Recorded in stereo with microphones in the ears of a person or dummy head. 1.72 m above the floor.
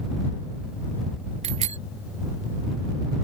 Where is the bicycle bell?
30° right (ahead or behind).